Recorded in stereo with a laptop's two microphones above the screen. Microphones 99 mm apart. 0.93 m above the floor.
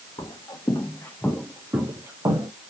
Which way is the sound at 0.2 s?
55° left (ahead or behind).